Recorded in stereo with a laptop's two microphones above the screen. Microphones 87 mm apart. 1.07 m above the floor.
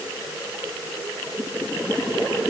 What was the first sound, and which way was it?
Only background noise.